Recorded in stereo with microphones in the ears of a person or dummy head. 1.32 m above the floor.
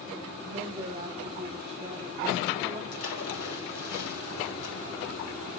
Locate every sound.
0.4 s a woman speaking: 30° right (ahead or behind), 1.5 m
2.9 s a splash: 85° left, 3 m